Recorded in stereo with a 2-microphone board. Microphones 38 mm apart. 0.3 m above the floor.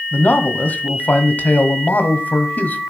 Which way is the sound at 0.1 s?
50° left (ahead or behind).